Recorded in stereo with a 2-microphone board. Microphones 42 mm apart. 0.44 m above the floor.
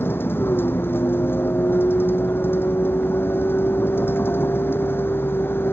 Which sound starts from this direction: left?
A vehicle, at 0.0 s.